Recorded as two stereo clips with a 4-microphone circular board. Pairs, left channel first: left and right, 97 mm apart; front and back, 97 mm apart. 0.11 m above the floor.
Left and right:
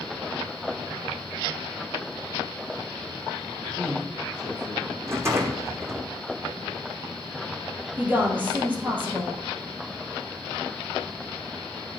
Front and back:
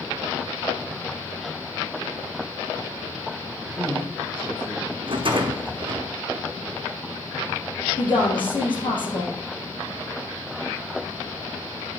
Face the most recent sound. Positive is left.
turn(degrees=-20)